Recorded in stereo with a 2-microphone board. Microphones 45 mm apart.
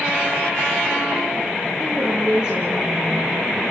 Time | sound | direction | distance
1.8 | a woman speaking | 20° right (ahead or behind) | 5.5 m